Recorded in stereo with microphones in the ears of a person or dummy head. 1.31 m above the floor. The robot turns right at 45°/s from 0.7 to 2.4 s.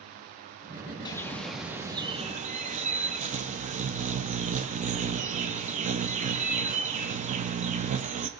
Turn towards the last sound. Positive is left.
turn(degrees=-140)